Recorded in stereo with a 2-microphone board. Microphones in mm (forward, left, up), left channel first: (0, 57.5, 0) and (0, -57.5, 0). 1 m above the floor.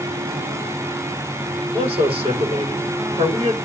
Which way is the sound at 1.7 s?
50° right (ahead or behind).